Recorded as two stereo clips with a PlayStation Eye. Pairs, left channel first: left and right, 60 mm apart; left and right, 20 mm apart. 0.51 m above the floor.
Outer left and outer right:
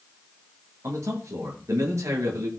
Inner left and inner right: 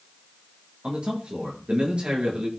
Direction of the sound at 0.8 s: 60° right (ahead or behind).